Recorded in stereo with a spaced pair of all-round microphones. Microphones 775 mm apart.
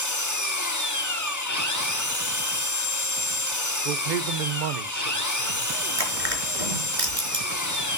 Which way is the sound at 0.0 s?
25° left (ahead or behind).